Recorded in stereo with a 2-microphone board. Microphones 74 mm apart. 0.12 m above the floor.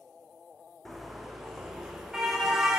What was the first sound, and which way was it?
A car horn, centre (ahead or behind).